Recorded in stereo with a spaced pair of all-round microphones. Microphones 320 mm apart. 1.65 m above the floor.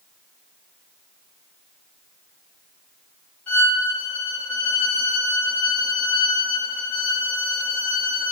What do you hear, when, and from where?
3.5 s a violin: 5° left (ahead or behind), 1.8 m